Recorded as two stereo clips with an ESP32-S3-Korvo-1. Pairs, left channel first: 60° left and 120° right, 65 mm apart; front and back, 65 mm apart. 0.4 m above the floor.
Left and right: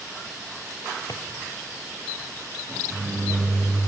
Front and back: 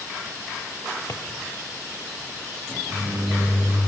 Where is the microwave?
165° right, 7 m.